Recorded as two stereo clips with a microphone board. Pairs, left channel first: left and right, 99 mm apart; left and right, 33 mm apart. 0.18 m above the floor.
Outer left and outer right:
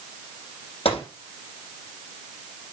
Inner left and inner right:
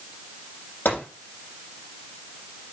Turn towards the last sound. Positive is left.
turn(degrees=80)